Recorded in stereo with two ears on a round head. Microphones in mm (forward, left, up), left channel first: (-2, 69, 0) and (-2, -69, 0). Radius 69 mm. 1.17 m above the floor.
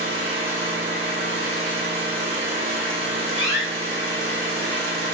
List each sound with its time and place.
0.0 s an engine running: 45° right (ahead or behind), 1.1 m
3.4 s a door slam: 70° left (ahead or behind), 0.6 m